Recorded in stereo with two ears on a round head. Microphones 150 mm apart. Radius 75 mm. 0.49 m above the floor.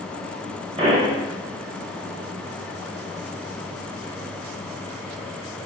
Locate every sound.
0.8 s a pop: 35° right (ahead or behind), 1.9 m